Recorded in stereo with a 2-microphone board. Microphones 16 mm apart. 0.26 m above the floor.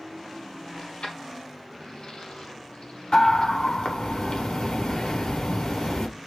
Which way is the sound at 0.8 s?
80° left.